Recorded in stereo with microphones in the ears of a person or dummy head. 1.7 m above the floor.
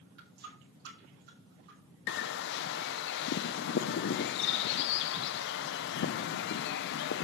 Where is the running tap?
65° right (ahead or behind), 4.5 m.